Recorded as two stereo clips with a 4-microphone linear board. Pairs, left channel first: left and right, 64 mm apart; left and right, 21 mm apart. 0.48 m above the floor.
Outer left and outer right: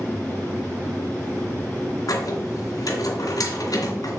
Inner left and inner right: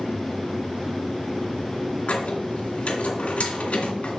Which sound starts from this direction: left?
A squeak, at 2.1 s.